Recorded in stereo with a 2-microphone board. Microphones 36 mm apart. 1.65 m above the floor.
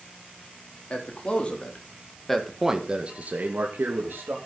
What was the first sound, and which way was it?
A man speaking, 35° left (ahead or behind).